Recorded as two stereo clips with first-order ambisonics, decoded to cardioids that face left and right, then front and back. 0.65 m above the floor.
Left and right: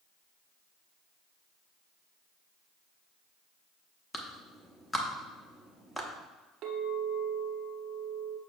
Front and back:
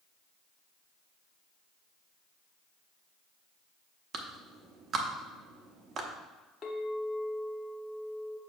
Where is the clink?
55° right, 0.9 m.